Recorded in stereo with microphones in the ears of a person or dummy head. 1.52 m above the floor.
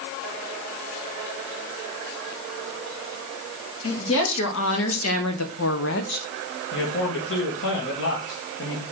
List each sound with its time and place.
3.8 s a woman speaking: 75° left (ahead or behind), 3 m; by 6.3 s 40° left (ahead or behind), 0.9 m
6.7 s a man speaking: 70° left (ahead or behind), 2.5 m